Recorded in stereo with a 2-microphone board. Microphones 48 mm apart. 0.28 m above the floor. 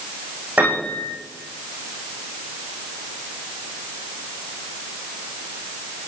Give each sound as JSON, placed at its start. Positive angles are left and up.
{"t": 0.6, "sound": "a piano", "side_deg": -35, "distance_m": 7.0}